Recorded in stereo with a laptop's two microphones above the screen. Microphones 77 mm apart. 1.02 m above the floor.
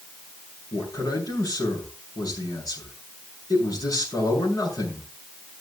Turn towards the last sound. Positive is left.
turn(degrees=50)  # may be behind; listen again after turning